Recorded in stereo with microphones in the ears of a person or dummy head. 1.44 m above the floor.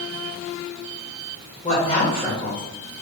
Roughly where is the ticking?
No ticking in this recording.